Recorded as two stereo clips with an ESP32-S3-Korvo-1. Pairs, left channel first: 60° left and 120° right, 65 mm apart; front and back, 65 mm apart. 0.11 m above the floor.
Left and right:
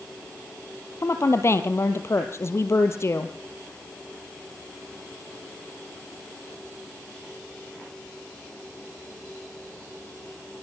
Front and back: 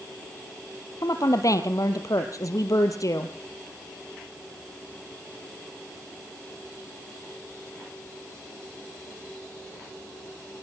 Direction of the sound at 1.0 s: 20° left.